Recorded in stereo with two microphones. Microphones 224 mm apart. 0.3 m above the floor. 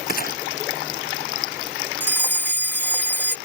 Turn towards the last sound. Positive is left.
turn(degrees=10)  # may be behind; listen again after turning